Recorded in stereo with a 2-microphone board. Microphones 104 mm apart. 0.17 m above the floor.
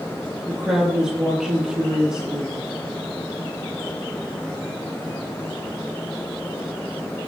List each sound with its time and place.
0.5 s a woman speaking: 5° right (ahead or behind), 3 m